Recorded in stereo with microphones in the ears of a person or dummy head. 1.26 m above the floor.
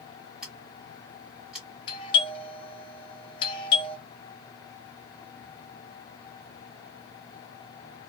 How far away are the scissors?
About 1.3 m.